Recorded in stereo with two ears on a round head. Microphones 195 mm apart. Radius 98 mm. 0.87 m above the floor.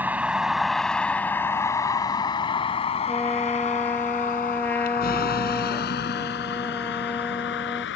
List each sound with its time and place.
0.0 s a vehicle: 10° right (ahead or behind); by 8.0 s 60° left (ahead or behind)
3.1 s a trumpet: 10° left (ahead or behind)